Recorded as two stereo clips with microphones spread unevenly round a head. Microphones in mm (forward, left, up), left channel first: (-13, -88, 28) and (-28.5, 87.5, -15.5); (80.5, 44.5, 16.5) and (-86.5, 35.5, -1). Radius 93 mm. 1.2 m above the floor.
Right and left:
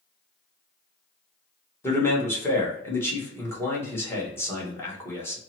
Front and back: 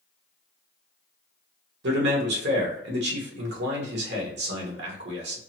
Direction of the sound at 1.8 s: 165° right.